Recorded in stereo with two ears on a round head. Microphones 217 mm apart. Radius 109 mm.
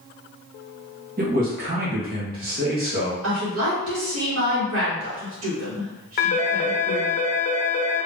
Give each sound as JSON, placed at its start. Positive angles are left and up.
{"t": 1.2, "sound": "a man speaking", "side_deg": -40, "distance_m": 1.4}
{"t": 3.2, "sound": "a woman speaking", "side_deg": -65, "distance_m": 1.8}
{"t": 6.2, "sound": "a phone ringing", "side_deg": 40, "distance_m": 0.8}